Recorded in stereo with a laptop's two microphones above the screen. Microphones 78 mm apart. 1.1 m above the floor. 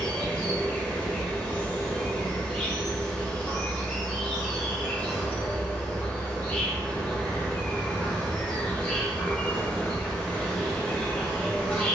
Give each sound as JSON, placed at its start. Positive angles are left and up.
{"t": 0.0, "sound": "an insect", "side_deg": 20, "distance_m": 0.8}